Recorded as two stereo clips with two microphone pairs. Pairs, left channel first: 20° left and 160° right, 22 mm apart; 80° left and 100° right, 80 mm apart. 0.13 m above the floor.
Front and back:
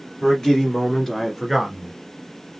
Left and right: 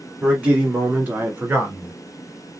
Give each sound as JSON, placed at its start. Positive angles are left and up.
{"t": 0.2, "sound": "a man speaking", "azimuth_deg": -30, "distance_m": 2.5}